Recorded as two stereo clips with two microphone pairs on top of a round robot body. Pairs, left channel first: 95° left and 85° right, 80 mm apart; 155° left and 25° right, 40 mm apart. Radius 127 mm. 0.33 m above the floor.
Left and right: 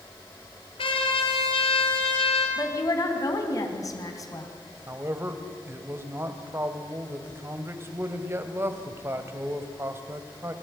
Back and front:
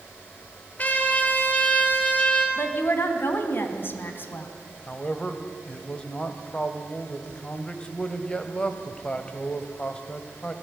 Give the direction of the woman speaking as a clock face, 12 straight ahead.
7 o'clock.